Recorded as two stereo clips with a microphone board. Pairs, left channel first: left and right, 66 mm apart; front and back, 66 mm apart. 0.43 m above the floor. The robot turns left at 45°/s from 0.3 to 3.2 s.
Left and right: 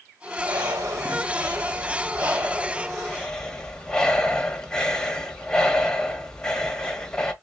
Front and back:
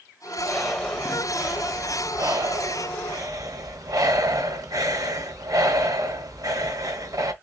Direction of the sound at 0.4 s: 65° right.